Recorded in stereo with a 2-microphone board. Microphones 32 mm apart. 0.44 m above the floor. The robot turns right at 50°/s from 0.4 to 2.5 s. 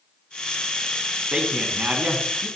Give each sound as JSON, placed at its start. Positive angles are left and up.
{"t": 1.3, "sound": "a man speaking", "azimuth_deg": -155, "distance_m": 3.5}